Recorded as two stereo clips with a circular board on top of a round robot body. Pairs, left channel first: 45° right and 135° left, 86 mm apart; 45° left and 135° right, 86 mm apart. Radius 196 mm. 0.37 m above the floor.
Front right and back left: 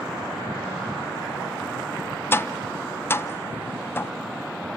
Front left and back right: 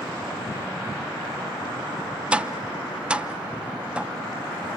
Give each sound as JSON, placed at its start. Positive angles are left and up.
{"t": 2.3, "sound": "tapping", "azimuth_deg": -70, "distance_m": 0.6}